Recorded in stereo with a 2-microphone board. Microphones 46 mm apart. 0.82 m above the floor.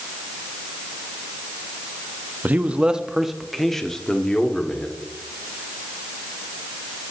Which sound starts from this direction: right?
A man speaking, at 2.4 s.